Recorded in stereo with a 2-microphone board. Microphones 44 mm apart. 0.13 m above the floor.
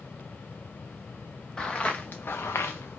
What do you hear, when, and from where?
1.6 s footsteps: 20° left (ahead or behind), 0.9 m; by 3.0 s 60° left (ahead or behind), 0.7 m